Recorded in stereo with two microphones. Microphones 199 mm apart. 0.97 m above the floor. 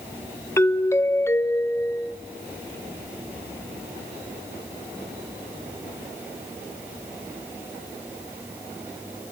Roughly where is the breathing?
No breathing in this recording.